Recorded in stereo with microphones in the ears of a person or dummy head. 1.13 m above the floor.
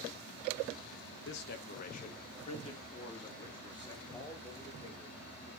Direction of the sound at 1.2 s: 60° left (ahead or behind).